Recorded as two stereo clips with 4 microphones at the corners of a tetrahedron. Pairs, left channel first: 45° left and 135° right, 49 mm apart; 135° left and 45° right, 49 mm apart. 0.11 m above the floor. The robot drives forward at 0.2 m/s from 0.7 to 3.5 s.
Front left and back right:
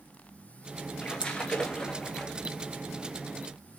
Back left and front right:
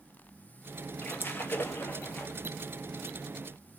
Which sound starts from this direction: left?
A splash, at 1.0 s.